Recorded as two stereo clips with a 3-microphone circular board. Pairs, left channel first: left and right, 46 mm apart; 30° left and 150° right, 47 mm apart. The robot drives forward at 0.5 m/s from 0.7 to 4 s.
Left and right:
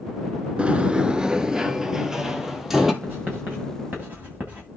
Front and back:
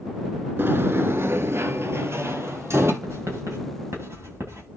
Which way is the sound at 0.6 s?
150° right.